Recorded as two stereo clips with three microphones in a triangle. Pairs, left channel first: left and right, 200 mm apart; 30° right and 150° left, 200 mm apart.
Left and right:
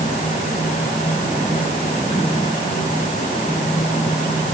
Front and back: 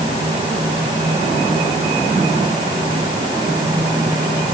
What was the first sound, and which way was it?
Only background noise.